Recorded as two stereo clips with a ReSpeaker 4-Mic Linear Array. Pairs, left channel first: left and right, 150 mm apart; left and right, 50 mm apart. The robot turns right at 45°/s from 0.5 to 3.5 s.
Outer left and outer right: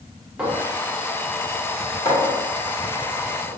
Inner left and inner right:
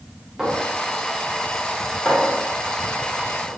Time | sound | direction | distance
0.4 | a clink | 10° right (ahead or behind) | 1.1 m